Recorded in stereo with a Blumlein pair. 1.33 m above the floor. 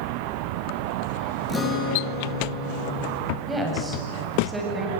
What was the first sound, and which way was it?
A guitar, 20° left.